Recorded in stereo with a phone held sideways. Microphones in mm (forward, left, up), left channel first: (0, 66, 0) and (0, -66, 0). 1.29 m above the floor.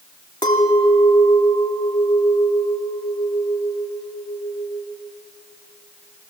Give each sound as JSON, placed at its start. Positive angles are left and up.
{"t": 0.4, "sound": "a clink", "side_deg": 35, "distance_m": 2.0}